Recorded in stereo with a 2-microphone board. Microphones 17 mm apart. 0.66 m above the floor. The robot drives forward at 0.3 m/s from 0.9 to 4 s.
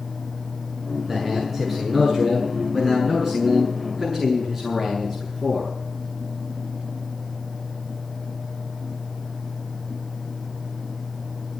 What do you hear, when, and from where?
1.1 s a man speaking: 5° left (ahead or behind), 7 m